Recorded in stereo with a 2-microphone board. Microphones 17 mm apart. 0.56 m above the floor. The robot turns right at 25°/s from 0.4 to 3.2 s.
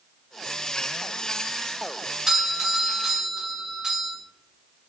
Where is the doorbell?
45° right (ahead or behind), 1.8 m; by 4.1 s 55° right (ahead or behind), 1.8 m.